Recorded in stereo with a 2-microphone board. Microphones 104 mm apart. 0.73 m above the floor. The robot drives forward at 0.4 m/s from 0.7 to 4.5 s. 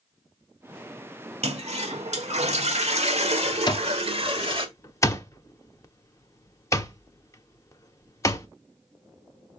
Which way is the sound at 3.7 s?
40° left (ahead or behind).